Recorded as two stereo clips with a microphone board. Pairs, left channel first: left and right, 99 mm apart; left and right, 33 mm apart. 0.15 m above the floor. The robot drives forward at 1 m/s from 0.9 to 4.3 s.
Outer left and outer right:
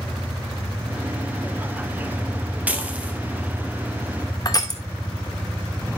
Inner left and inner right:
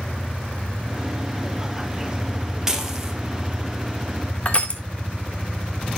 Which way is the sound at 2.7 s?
15° right (ahead or behind).